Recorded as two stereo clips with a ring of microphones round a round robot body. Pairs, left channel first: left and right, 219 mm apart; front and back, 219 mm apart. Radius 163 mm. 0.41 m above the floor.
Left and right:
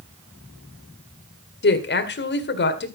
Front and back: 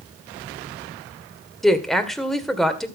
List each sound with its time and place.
1.6 s a woman speaking: 90° left, 2 m